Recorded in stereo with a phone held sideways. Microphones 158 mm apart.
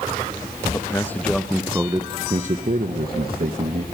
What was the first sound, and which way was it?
A man speaking, 20° left (ahead or behind).